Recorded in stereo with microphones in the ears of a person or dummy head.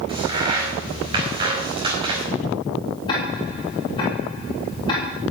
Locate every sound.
0.1 s a crack: 25° right (ahead or behind), 4.5 m
3.1 s ticking: 30° left (ahead or behind), 4 m